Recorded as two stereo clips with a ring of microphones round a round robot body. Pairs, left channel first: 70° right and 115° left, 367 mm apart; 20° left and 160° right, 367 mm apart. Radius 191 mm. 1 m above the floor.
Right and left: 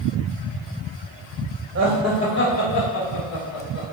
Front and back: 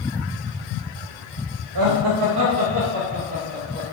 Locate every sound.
1.8 s laughter: 165° left, 0.9 m; by 3.8 s 85° right, 2.5 m